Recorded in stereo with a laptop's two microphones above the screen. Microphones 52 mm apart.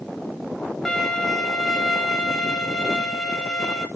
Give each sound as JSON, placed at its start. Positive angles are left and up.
{"t": 0.8, "sound": "a violin", "side_deg": 10, "distance_m": 1.8}